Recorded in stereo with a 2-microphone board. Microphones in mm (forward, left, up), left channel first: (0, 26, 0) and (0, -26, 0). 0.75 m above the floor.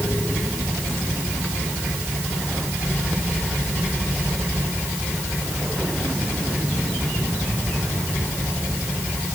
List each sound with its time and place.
Only background noise.